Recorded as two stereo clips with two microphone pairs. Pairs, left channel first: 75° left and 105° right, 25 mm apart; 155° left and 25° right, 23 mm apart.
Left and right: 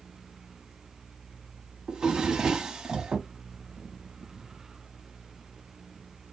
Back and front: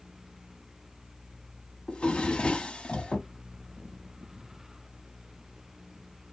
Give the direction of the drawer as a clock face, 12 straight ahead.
6 o'clock.